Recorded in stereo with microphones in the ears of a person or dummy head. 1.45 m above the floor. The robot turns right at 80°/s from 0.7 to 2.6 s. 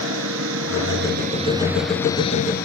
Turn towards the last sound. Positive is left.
turn(degrees=55)